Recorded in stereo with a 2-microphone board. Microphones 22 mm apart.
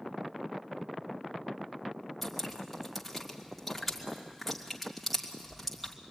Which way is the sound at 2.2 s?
Centre (ahead or behind).